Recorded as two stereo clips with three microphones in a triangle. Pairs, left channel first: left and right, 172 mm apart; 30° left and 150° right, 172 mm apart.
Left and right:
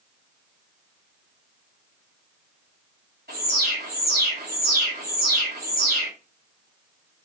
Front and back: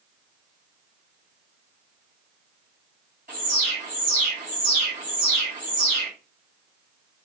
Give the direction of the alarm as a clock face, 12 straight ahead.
4 o'clock.